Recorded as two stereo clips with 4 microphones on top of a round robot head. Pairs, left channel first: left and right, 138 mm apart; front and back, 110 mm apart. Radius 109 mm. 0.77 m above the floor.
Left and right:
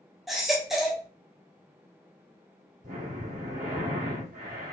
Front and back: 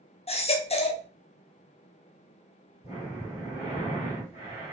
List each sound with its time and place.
0.3 s a baby crying: 5° right, 0.8 m
2.8 s breathing: 55° right, 2 m